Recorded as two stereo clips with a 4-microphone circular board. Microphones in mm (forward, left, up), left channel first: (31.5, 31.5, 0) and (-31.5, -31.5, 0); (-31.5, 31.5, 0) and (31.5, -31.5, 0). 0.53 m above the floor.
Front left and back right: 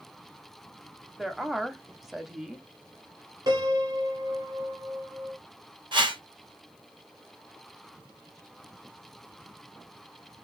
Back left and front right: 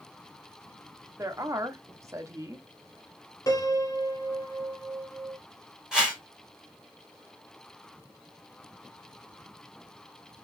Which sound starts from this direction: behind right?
A whoosh, at 5.9 s.